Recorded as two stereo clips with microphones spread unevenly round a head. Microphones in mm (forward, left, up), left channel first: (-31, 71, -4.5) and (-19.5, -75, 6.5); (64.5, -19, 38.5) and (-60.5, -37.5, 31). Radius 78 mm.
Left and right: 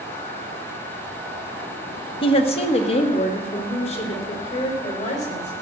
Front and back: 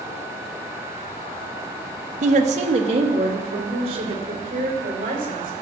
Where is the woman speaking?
150° left, 1.0 m; by 5.6 s 135° left, 5 m.